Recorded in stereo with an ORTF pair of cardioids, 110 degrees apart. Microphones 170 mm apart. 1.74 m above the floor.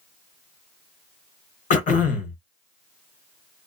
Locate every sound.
1.7 s throat clearing: 50° left, 1.0 m